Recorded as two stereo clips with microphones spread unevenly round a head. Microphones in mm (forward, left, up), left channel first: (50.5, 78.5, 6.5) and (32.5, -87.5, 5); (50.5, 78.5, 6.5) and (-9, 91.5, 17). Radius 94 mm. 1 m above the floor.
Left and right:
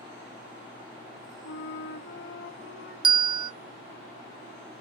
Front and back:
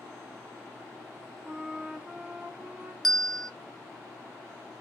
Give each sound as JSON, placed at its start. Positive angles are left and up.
{"t": 1.4, "sound": "a flute", "azimuth_deg": 100, "distance_m": 2.0}
{"t": 3.0, "sound": "a bell", "azimuth_deg": -80, "distance_m": 0.7}